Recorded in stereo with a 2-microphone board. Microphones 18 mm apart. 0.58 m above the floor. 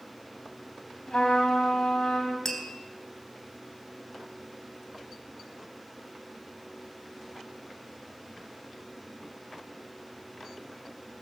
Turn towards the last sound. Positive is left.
turn(degrees=25)  # may be behind; listen again after turning